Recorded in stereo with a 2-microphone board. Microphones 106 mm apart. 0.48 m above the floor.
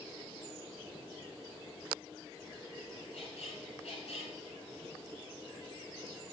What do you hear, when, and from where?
3.1 s a squeak: 85° left, 1.3 m